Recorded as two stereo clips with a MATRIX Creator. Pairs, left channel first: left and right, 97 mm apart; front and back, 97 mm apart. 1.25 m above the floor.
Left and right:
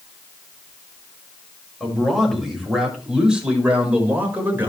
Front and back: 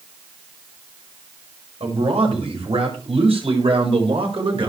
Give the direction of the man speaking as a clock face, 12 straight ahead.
6 o'clock.